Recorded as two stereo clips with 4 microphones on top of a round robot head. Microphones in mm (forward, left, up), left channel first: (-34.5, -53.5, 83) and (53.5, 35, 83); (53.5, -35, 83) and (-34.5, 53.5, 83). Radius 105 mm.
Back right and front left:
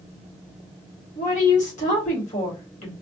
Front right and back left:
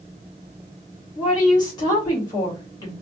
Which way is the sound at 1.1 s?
105° right.